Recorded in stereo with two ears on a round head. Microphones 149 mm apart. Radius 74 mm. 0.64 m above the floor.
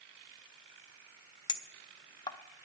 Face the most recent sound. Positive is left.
turn(degrees=25)  # may be behind; listen again after turning